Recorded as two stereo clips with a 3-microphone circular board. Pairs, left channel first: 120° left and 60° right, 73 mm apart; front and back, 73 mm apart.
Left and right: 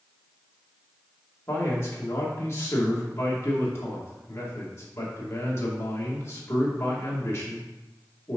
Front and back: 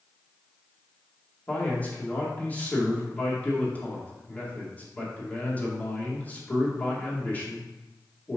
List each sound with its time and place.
1.5 s a man speaking: 65° left, 2.5 m